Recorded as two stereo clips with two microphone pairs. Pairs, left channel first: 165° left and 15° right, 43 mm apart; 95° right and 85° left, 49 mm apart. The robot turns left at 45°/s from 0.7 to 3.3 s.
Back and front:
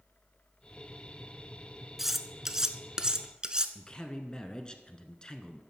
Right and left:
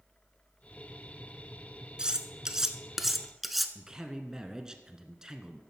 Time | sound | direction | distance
2.0 | cutlery clinking | 65° left | 0.7 m
3.8 | a man speaking | 140° left | 1.1 m